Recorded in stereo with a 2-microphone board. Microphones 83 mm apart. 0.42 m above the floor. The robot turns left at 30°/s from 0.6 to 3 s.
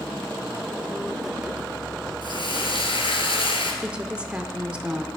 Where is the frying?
65° left (ahead or behind), 2 m; by 3.7 s 90° left, 2 m.